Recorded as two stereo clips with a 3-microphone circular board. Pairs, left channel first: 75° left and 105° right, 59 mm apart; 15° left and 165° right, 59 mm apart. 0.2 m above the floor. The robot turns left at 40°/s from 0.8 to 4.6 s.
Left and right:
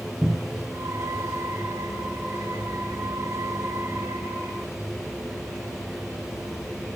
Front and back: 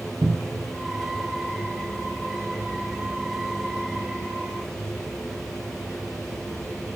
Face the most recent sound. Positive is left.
turn(degrees=20)